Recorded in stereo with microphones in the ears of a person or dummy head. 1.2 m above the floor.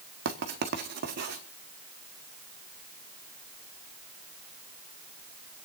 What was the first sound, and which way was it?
Writing, 55° right (ahead or behind).